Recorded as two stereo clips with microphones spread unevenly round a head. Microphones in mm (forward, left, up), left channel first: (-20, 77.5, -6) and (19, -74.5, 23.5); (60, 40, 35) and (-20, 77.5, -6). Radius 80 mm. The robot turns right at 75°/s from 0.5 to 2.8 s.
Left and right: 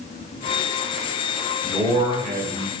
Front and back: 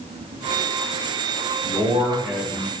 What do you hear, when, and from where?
1.6 s a man speaking: 170° right, 0.6 m; by 2.8 s 80° right, 0.6 m